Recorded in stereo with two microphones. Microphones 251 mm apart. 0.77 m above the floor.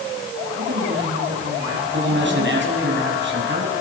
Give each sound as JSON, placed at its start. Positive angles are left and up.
{"t": 0.6, "sound": "a woman speaking", "side_deg": -60, "distance_m": 5.0}
{"t": 1.9, "sound": "a man speaking", "side_deg": -50, "distance_m": 6.5}